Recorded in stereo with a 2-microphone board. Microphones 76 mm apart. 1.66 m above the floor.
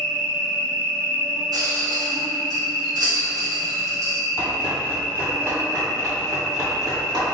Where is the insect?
45° right (ahead or behind), 2.0 m.